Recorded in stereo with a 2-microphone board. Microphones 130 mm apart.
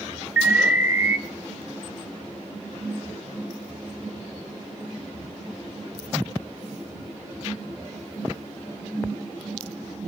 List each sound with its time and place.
0.4 s an alarm: 20° right (ahead or behind), 1.2 m